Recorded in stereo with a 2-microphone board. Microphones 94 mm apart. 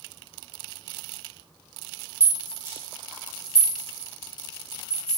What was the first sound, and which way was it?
A rattle, 30° right (ahead or behind).